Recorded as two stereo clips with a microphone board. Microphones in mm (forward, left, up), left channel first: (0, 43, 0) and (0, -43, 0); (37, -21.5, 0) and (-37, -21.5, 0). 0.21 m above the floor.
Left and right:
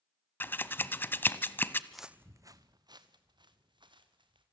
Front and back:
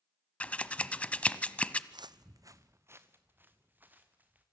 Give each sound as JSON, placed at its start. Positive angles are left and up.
{"t": 0.4, "sound": "scissors", "azimuth_deg": 55, "distance_m": 0.8}
{"t": 1.9, "sound": "footsteps", "azimuth_deg": 175, "distance_m": 0.6}